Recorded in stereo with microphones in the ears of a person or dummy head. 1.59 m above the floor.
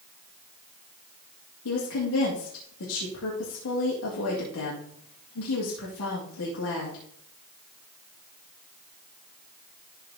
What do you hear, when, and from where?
1.6 s a woman speaking: 80° left, 2.5 m